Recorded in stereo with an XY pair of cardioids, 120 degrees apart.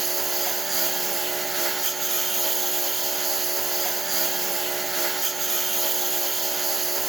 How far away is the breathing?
No breathing in this recording.